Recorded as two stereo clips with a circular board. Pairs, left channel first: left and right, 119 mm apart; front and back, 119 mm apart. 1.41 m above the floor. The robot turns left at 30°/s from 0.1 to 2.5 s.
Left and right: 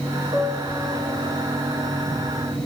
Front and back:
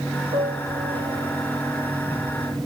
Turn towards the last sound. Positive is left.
turn(degrees=125)